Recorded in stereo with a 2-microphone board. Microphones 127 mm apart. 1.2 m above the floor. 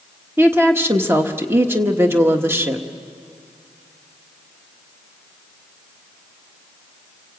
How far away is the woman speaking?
About 1.3 m.